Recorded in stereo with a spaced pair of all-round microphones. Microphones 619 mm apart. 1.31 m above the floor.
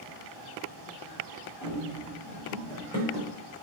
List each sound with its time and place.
1.6 s running footsteps: 5° right (ahead or behind), 3 m; by 3.3 s 10° left (ahead or behind), 3.5 m